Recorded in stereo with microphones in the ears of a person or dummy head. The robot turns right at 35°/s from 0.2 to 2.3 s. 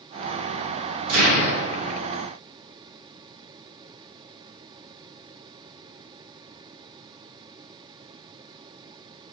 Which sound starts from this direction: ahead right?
An explosion, at 1.1 s.